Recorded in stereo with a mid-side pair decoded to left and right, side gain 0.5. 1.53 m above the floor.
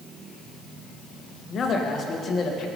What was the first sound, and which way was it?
A man speaking, 50° left.